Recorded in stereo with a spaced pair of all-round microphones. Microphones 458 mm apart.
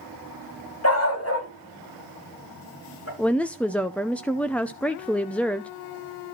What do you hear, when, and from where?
0.8 s a dog barking: 35° left (ahead or behind), 3 m; by 3.1 s 25° left (ahead or behind), 5 m
3.2 s a woman speaking: 5° left (ahead or behind), 0.5 m